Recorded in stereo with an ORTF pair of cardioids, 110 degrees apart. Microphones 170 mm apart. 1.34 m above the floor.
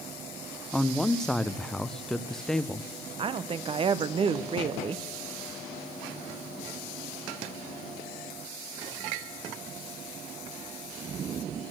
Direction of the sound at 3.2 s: 35° right.